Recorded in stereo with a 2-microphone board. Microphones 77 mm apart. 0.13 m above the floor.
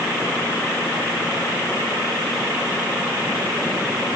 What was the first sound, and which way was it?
Only background noise.